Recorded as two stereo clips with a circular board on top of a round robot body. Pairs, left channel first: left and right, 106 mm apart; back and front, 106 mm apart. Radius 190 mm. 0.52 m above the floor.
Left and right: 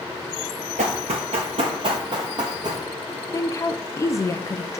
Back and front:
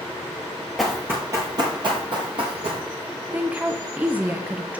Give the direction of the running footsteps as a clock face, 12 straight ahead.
3 o'clock.